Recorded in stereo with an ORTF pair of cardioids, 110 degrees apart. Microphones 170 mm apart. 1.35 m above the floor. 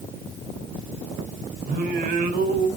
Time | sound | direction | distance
1.7 | singing | 70° right | 3 m